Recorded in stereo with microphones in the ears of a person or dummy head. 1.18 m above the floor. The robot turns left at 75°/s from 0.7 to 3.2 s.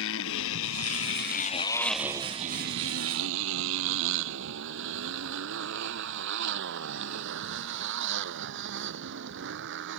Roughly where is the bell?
I don't hear a bell.